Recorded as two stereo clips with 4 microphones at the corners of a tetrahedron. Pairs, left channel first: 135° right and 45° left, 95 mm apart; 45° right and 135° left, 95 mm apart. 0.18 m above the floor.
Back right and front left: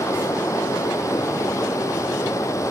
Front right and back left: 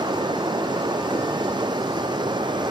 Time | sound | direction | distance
0.0 | running water | 170° left | 0.8 m